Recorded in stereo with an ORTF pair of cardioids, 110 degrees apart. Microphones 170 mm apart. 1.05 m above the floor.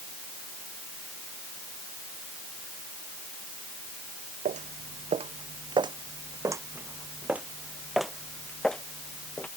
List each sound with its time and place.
4.5 s footsteps: 50° right; by 9.5 s 10° left